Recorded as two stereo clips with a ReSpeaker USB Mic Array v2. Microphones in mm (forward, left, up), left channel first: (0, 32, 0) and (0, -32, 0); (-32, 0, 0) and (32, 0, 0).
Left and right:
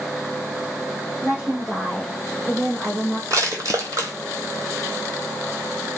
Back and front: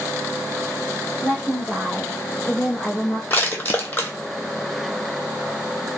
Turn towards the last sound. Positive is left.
turn(degrees=-120)